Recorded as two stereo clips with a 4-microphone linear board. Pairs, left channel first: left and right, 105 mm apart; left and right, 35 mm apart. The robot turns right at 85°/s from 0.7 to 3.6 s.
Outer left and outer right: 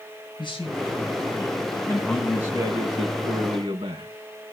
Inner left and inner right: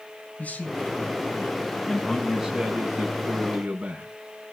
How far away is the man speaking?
About 4.5 m.